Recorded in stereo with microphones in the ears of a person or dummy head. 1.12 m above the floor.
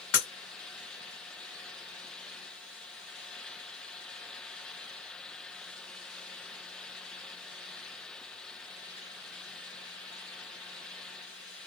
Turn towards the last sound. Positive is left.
turn(degrees=65)  # may be behind; listen again after turning